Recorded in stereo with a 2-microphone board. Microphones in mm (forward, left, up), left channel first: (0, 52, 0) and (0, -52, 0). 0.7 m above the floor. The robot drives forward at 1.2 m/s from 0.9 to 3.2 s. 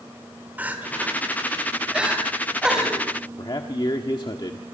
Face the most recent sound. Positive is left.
turn(degrees=45)  # may be behind; listen again after turning